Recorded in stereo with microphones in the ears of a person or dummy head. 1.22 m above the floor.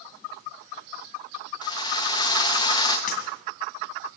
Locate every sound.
1.6 s a drill: 20° left (ahead or behind), 1.2 m
3.1 s breaking glass: 50° left (ahead or behind), 2.5 m